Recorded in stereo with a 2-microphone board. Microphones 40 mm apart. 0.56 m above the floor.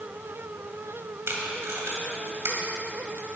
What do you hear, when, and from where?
1.3 s tape being pulled: 80° right, 1.8 m